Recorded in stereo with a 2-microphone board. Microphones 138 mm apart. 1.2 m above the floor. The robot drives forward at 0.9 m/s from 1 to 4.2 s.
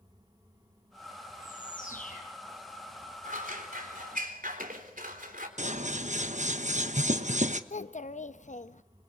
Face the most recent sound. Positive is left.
turn(degrees=60)  # may be behind; listen again after turning